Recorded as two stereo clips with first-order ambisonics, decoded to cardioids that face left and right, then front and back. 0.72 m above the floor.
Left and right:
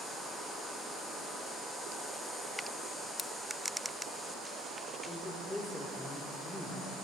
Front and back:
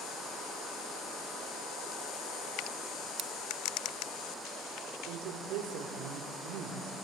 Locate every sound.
3.2 s scissors: 155° left, 0.8 m
5.1 s a woman speaking: 170° left, 2 m